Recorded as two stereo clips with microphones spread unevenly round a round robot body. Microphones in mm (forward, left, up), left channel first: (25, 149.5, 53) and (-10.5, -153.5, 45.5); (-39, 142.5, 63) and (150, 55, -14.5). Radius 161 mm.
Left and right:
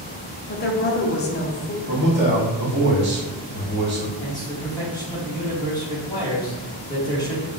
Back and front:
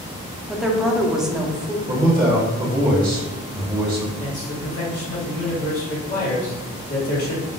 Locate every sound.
0.5 s a woman speaking: 40° left, 0.7 m
1.9 s a man speaking: 70° right, 1.5 m
4.2 s a man speaking: 160° left, 1.3 m